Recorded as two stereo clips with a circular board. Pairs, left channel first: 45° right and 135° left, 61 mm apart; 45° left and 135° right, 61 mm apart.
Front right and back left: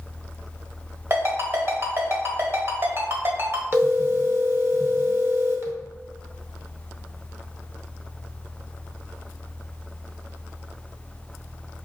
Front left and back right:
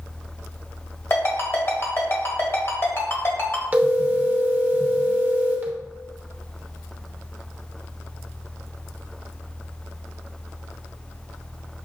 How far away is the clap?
I don't hear a clap.